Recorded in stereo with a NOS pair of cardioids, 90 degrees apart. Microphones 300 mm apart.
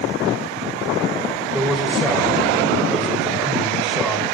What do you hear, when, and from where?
1.5 s a man speaking: straight ahead, 5.5 m